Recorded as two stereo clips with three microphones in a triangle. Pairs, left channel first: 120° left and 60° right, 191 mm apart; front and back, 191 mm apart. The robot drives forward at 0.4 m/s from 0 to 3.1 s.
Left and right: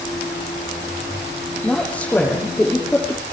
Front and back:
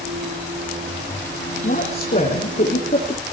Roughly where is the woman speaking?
Ahead left.